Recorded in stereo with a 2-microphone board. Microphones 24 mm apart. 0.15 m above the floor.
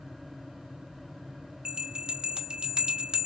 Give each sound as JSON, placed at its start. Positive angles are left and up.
{"t": 1.6, "sound": "a bell", "side_deg": -35, "distance_m": 0.7}